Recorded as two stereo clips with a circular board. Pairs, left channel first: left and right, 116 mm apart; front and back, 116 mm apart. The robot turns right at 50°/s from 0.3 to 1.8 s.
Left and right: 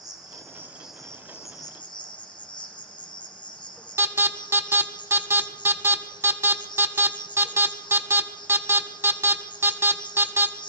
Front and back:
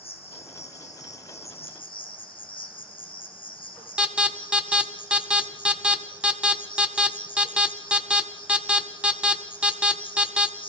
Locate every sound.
0.0 s an insect: 35° right, 2 m; by 10.7 s 40° left, 2 m
4.0 s an alarm: 115° right, 1.2 m